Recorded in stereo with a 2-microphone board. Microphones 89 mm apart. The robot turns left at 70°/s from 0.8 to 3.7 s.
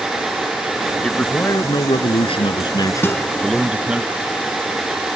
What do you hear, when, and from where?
1.0 s a man speaking: 175° left; by 4.0 s 15° right
3.0 s a guitar: 25° left (ahead or behind); by 3.3 s 5° left (ahead or behind)